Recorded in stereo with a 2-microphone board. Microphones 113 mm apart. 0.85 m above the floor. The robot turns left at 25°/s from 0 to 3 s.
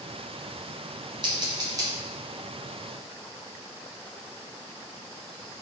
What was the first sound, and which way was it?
Scissors, 45° right (ahead or behind).